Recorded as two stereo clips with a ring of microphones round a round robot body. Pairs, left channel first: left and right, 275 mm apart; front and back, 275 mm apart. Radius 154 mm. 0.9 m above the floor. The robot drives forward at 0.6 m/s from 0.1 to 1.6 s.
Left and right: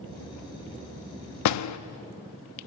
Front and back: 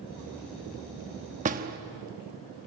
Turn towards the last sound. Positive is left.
turn(degrees=115)